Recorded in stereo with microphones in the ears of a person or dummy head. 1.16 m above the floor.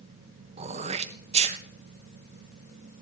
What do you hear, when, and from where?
0.6 s throat clearing: 35° right (ahead or behind), 0.6 m